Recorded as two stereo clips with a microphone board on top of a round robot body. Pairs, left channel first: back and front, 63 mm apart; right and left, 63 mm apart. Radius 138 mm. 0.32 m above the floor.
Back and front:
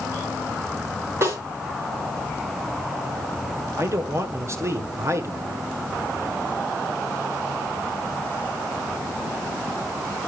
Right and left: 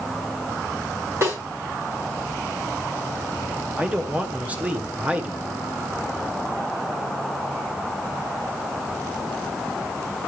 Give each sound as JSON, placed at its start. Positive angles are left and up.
{"t": 1.2, "sound": "a snare drum", "azimuth_deg": 45, "distance_m": 7.5}
{"t": 3.8, "sound": "a man speaking", "azimuth_deg": 30, "distance_m": 1.7}